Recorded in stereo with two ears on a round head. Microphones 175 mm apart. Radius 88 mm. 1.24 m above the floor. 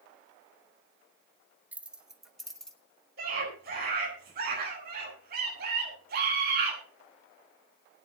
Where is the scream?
50° right (ahead or behind), 9.5 m.